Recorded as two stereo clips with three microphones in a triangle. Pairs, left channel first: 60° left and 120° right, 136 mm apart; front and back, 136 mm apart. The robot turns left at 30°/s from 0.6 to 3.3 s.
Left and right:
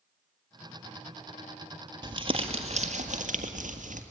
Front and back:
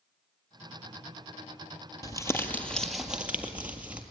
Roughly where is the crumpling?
Ahead right.